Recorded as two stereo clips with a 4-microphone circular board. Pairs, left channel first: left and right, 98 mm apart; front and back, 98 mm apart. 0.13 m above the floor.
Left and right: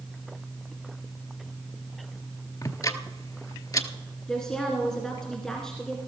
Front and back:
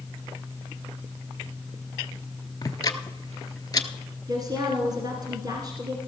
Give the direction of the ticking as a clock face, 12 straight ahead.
11 o'clock.